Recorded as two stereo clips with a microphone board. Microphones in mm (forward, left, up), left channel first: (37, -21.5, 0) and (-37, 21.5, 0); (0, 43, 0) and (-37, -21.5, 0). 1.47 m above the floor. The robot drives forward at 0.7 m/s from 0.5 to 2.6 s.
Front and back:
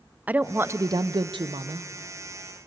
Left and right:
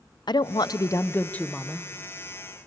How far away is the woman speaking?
About 0.6 m.